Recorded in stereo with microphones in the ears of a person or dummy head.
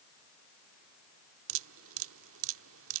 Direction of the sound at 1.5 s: 75° right (ahead or behind).